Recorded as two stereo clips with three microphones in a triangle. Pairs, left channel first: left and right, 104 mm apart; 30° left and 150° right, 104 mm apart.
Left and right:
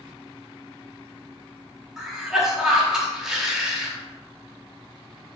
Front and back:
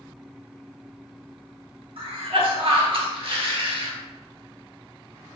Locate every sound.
2.0 s a cough: 175° right, 1.5 m